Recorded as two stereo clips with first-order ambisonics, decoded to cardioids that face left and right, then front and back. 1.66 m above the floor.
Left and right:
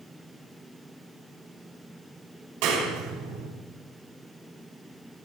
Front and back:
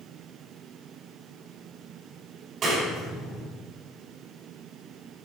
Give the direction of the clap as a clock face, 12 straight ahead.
4 o'clock.